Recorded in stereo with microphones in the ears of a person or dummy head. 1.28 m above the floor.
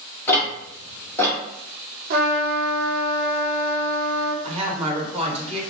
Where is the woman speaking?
30° right (ahead or behind), 1.0 m.